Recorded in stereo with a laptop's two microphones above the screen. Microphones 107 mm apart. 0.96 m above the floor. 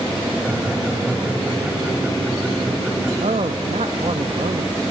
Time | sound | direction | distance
0.4 | laughter | 10° right (ahead or behind) | 7 m
3.2 | a man speaking | 75° right (ahead or behind) | 0.9 m